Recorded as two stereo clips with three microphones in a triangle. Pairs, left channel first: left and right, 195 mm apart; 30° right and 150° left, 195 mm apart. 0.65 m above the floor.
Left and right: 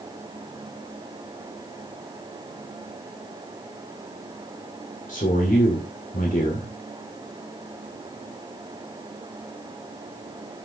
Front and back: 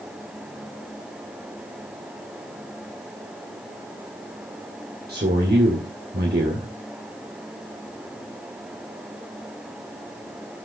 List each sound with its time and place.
5.1 s a man speaking: 130° left, 2 m